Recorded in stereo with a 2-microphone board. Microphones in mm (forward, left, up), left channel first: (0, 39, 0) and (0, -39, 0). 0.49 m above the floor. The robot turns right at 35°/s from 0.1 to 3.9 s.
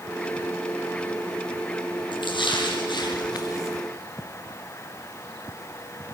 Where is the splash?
80° left, 5.5 m; by 3.8 s 140° left, 5.5 m.